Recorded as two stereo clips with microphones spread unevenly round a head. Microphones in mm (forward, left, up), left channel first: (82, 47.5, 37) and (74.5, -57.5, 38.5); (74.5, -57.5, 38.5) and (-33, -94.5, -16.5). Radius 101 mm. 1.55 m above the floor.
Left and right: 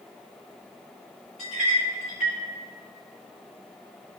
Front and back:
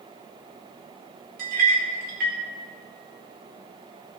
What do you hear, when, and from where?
1.4 s a clink: straight behind, 2.5 m